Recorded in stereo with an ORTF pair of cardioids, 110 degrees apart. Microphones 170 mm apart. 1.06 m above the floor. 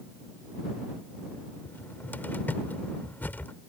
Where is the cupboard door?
10° left.